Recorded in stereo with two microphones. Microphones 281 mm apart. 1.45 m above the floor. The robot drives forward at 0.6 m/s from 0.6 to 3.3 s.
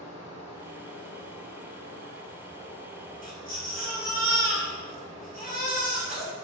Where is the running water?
60° left (ahead or behind), 0.8 m; by 6.5 s 30° left (ahead or behind), 1.4 m.